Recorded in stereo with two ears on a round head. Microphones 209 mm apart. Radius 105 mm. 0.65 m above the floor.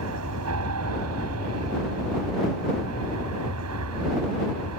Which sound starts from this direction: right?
An aircraft, at 0.0 s.